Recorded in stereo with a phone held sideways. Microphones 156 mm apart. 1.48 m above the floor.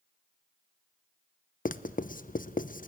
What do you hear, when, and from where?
1.6 s writing: 60° left (ahead or behind), 0.7 m